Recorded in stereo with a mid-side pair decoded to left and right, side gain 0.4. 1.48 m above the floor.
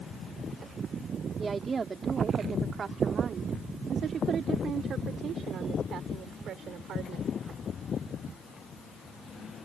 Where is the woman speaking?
40° right; by 7.3 s 75° right.